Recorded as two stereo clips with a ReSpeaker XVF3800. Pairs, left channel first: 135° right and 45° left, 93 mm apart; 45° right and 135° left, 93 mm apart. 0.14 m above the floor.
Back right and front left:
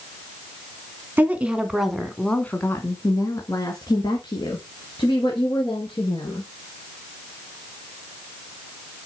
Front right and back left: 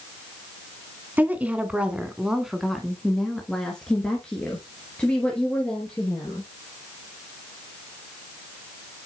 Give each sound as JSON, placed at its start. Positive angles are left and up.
{"t": 1.2, "sound": "a woman speaking", "azimuth_deg": 90, "distance_m": 1.3}